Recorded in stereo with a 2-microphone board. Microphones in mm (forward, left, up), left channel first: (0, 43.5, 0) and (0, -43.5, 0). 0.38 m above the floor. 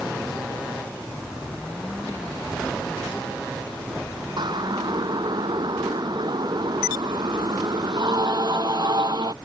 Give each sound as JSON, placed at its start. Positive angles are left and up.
{"t": 4.4, "sound": "a siren", "side_deg": -60}